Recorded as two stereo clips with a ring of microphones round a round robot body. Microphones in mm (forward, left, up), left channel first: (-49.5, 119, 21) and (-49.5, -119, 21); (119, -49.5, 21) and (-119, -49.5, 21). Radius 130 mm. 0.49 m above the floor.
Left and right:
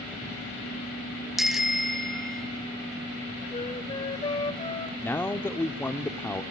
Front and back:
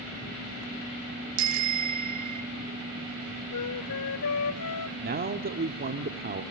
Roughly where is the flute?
Ahead.